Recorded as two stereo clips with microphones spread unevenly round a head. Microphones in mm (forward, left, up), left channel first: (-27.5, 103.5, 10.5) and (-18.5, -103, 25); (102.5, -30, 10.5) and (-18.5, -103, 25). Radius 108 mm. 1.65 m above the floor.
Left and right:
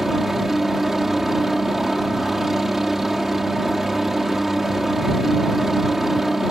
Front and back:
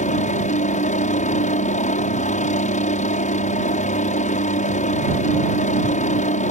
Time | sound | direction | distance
0.0 | a helicopter | straight ahead | ?